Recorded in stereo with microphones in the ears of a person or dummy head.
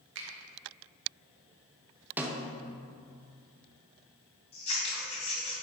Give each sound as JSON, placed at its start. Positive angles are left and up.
{"t": 0.1, "sound": "a finger snap", "side_deg": -70, "distance_m": 1.2}
{"t": 2.2, "sound": "a snare drum", "side_deg": -10, "distance_m": 0.7}
{"t": 4.5, "sound": "scissors", "side_deg": 35, "distance_m": 2.5}